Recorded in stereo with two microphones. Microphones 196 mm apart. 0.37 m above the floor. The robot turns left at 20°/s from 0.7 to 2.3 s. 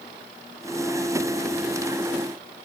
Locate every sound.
Only background noise.